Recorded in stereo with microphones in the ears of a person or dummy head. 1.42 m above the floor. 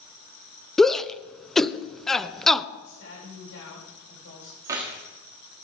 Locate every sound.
0.8 s a shout: 5° left (ahead or behind), 0.6 m
2.8 s a woman speaking: 80° left, 8.5 m
4.6 s keys jangling: 20° right (ahead or behind), 1.7 m